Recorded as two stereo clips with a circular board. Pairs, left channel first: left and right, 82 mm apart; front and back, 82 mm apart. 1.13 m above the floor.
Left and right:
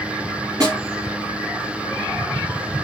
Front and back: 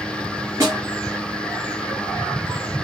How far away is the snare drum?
About 5 m.